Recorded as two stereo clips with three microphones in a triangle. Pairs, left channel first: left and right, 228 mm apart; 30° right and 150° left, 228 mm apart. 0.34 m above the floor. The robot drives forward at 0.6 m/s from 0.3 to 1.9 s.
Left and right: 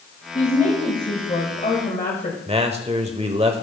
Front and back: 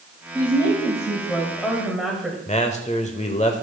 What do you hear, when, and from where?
0.3 s a woman speaking: 35° left, 2 m; by 2.4 s 65° left, 1.6 m
2.5 s a man speaking: 55° right, 1.0 m